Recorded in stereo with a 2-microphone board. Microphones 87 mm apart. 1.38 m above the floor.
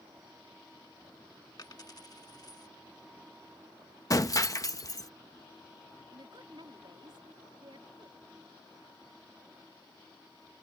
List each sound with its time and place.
1.6 s a dropped coin: 50° left (ahead or behind)
4.1 s breaking glass: 40° left (ahead or behind)
6.1 s a woman speaking: 65° right (ahead or behind)